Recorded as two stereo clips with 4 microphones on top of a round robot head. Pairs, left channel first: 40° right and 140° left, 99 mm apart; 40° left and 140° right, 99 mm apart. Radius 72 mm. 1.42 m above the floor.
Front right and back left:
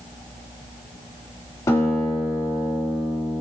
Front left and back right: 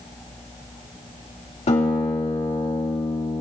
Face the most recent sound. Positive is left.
turn(degrees=20)